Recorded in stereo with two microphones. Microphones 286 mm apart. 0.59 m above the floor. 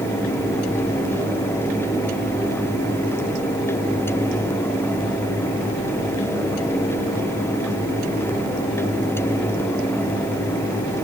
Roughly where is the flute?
I don't hear a flute.